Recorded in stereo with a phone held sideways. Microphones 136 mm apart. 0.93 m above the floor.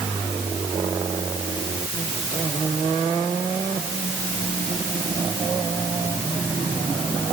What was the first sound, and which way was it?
Only background noise.